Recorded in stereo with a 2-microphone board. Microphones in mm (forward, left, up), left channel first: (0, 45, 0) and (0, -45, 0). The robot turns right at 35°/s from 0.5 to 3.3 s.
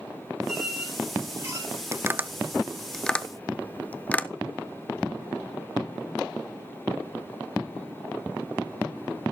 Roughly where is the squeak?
Centre.